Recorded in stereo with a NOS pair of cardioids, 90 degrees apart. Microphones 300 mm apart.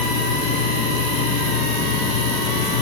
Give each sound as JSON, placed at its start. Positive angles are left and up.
{"t": 0.0, "sound": "a machine running", "azimuth_deg": 65, "distance_m": 5.0}